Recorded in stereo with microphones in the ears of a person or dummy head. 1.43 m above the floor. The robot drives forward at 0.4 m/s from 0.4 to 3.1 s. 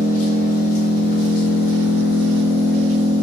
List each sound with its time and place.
0.0 s an engine running: 40° left (ahead or behind), 0.9 m; by 3.2 s 45° left (ahead or behind), 0.8 m